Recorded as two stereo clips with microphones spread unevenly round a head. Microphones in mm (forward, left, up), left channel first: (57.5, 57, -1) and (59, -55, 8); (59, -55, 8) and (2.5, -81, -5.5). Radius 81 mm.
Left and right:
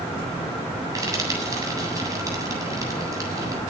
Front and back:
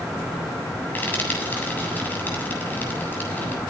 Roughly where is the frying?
Ahead right.